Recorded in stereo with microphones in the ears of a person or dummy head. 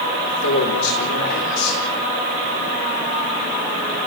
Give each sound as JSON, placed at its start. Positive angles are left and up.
{"t": 0.3, "sound": "a man speaking", "side_deg": 75, "distance_m": 4.5}